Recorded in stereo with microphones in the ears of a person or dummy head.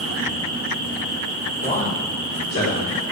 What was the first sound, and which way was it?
A man speaking, 40° left (ahead or behind).